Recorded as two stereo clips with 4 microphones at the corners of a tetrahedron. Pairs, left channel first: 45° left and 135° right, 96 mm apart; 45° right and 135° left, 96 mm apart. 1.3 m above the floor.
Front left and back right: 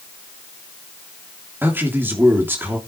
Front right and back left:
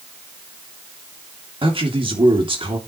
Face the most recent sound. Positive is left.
turn(degrees=155)